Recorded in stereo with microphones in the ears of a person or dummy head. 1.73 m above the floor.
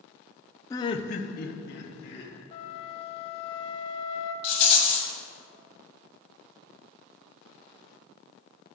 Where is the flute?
40° left (ahead or behind), 0.5 m.